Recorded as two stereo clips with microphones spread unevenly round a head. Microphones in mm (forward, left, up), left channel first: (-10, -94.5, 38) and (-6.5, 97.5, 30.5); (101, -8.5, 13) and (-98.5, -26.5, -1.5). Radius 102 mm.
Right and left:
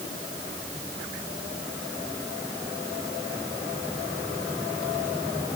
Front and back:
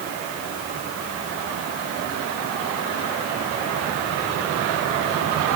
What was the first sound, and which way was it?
Only background noise.